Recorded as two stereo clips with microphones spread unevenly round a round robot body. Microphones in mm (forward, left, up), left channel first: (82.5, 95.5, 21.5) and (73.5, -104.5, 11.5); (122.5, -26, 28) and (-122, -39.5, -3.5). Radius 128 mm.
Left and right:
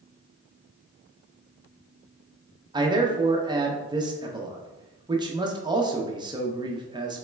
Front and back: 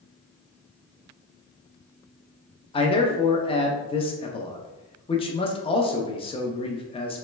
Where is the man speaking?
55° right, 0.7 m.